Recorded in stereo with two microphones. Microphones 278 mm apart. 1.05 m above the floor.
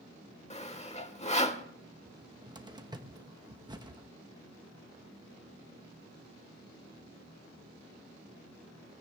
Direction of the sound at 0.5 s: 25° left (ahead or behind).